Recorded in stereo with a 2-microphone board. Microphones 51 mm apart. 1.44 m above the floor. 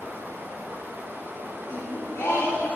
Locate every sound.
0.0 s running water: 45° right (ahead or behind), 0.9 m
1.7 s singing: 65° left (ahead or behind), 2.5 m